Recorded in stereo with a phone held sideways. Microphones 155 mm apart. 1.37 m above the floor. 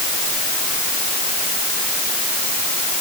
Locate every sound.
Only background noise.